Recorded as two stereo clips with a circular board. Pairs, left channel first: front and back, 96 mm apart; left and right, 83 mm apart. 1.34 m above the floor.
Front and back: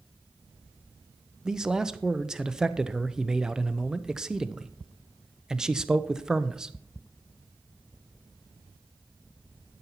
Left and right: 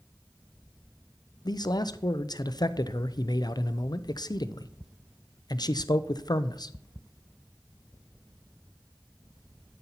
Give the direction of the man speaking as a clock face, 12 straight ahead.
9 o'clock.